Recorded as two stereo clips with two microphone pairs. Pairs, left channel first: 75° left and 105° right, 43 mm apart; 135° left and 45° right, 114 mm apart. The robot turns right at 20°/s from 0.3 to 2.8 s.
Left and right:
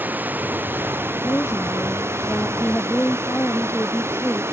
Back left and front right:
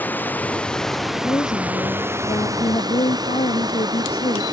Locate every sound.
0.0 s running water: 150° right; by 4.5 s 100° right
1.1 s a woman speaking: 75° left; by 4.4 s 110° left